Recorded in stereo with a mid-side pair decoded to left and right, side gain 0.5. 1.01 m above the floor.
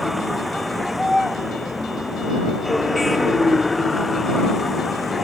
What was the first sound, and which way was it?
A vehicle, straight ahead.